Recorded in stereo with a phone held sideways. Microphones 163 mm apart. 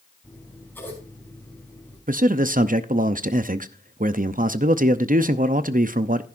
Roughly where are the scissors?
Centre.